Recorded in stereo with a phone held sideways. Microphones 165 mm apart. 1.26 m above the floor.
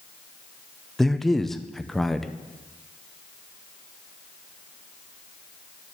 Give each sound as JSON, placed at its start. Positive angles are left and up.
{"t": 1.0, "sound": "a man speaking", "side_deg": 0, "distance_m": 0.6}